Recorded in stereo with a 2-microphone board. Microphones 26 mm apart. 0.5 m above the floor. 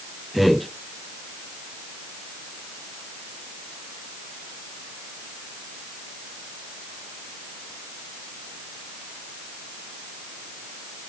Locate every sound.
0.3 s a man speaking: 10° right (ahead or behind), 1.4 m